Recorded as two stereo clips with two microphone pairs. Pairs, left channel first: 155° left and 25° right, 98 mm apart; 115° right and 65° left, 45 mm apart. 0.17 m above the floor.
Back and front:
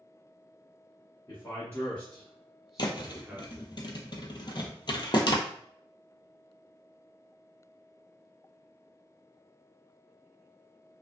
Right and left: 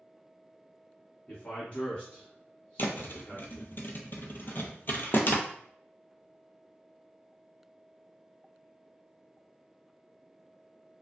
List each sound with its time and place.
1.3 s a man speaking: 160° right, 1.3 m; by 3.8 s 45° right, 1.2 m
2.8 s a thud: 160° right, 0.6 m